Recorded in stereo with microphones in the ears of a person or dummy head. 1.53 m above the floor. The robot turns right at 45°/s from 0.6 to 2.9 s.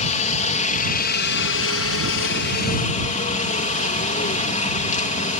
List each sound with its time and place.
0.0 s a helicopter: 40° left; by 5.4 s 145° left